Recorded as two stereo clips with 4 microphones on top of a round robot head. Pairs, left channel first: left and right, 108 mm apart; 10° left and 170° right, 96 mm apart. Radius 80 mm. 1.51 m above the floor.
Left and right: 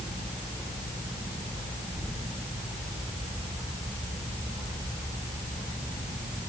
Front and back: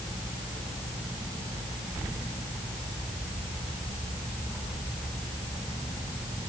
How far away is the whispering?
No whispering in this recording.